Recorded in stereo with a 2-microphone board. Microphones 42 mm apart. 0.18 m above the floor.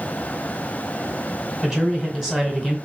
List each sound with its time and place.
1.6 s a man speaking: 15° right (ahead or behind), 1.7 m